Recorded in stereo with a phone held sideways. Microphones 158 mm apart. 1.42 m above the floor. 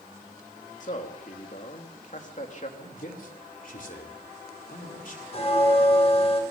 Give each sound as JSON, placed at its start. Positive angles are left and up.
{"t": 0.8, "sound": "a man speaking", "side_deg": 50, "distance_m": 3.0}
{"t": 2.8, "sound": "a man speaking", "side_deg": 60, "distance_m": 3.5}
{"t": 5.3, "sound": "a bell", "side_deg": 40, "distance_m": 4.0}